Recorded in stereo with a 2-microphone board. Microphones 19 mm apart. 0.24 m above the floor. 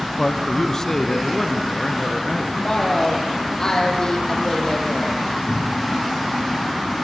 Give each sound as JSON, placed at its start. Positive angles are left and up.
{"t": 0.2, "sound": "a man speaking", "side_deg": 25, "distance_m": 1.5}
{"t": 2.5, "sound": "a woman speaking", "side_deg": 35, "distance_m": 7.5}
{"t": 5.5, "sound": "a cupboard door", "side_deg": -60, "distance_m": 9.0}